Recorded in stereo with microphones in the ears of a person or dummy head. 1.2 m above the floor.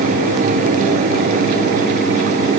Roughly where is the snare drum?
No snare drum in this recording.